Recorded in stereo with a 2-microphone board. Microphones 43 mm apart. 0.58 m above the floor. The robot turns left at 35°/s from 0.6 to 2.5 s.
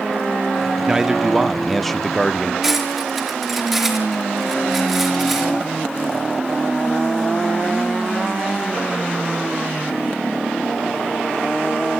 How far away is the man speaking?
About 0.9 m.